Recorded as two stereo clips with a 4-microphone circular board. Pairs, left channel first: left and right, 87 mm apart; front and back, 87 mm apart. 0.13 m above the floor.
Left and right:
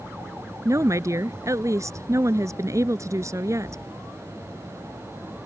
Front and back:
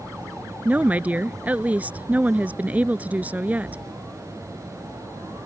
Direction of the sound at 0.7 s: 115° right.